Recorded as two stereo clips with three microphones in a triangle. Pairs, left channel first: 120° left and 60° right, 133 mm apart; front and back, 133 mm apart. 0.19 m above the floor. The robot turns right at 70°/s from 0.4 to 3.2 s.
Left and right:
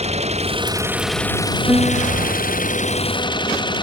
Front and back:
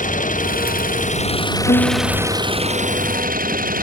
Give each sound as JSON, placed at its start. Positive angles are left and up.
{"t": 0.0, "sound": "an engine running", "azimuth_deg": -20}
{"t": 1.7, "sound": "a piano", "azimuth_deg": 5}